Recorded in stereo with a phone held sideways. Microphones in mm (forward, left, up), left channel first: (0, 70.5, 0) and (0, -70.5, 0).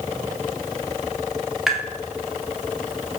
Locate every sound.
1.7 s tapping: centre (ahead or behind), 1.3 m